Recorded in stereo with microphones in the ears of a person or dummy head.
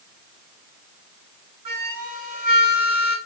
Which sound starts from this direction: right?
A flute, at 1.6 s.